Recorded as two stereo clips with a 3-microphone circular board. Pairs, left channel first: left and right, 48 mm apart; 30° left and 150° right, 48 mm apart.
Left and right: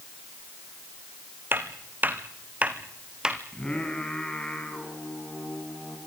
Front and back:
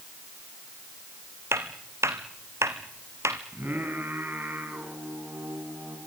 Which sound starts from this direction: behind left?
Singing, at 3.5 s.